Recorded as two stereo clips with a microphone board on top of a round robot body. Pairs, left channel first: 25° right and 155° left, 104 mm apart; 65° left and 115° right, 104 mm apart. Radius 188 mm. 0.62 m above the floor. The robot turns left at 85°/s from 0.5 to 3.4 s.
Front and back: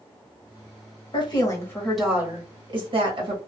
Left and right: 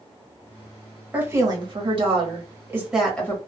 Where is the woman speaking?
40° right, 1.6 m; by 3.4 s 130° left, 1.6 m.